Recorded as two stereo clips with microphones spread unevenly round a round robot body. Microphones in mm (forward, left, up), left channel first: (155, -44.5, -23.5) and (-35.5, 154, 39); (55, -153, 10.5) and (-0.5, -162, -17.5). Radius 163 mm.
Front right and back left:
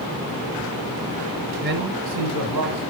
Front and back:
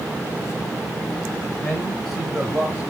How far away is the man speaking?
About 1.0 m.